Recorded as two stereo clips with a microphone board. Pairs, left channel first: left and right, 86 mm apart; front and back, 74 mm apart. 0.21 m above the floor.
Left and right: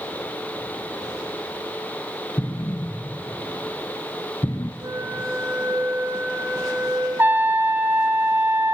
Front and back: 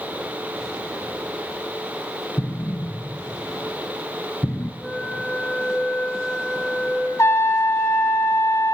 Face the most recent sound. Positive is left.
turn(degrees=-35)